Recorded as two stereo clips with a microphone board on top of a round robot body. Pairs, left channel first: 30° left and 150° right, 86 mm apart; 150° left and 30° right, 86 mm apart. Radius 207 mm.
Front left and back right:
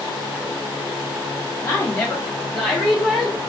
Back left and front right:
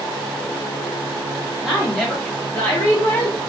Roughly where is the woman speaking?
Ahead left.